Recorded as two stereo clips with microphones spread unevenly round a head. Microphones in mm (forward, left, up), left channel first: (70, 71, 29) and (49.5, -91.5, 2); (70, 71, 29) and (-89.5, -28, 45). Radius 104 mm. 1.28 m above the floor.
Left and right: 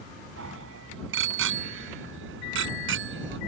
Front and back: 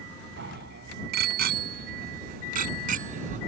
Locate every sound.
0.4 s a bicycle bell: 105° right; by 3.4 s 90° right